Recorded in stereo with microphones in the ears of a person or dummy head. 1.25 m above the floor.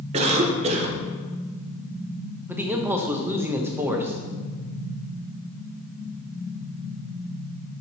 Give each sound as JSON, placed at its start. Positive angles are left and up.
{"t": 0.1, "sound": "a cough", "side_deg": -35, "distance_m": 0.9}
{"t": 2.5, "sound": "a man speaking", "side_deg": -10, "distance_m": 0.8}